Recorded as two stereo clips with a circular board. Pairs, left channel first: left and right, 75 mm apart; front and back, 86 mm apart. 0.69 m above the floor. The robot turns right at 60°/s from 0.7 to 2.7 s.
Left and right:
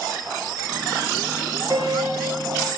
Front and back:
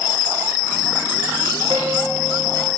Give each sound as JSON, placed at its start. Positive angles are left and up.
{"t": 1.7, "sound": "a piano", "azimuth_deg": -135, "distance_m": 2.5}